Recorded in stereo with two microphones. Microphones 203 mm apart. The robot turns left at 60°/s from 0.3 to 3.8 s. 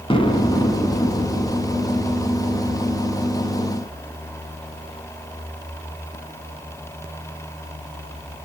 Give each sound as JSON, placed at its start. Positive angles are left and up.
{"t": 0.1, "sound": "an explosion", "side_deg": 25, "distance_m": 0.8}